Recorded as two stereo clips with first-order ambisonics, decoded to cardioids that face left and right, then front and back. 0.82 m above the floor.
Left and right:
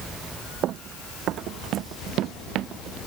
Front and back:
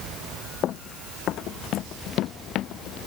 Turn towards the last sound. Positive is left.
turn(degrees=-45)